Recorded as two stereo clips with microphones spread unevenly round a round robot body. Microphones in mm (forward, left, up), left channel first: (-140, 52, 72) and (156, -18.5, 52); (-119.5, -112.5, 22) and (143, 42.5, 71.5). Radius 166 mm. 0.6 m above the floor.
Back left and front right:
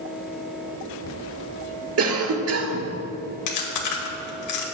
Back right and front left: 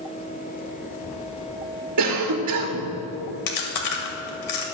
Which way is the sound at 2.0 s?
5° left.